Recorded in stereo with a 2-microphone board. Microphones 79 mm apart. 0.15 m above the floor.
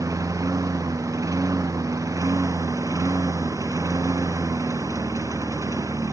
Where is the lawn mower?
45° right (ahead or behind).